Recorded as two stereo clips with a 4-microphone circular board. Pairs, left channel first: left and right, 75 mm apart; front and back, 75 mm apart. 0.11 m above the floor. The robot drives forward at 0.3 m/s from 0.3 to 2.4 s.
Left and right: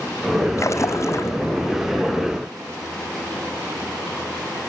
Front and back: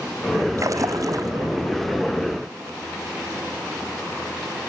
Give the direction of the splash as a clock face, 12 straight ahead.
7 o'clock.